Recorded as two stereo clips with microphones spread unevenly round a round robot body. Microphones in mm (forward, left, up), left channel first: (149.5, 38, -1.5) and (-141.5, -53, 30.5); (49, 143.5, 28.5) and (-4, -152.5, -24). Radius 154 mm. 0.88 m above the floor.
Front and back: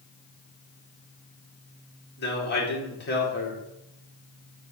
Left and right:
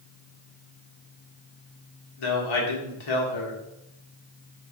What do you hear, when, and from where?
2.2 s a man speaking: 75° left, 2.5 m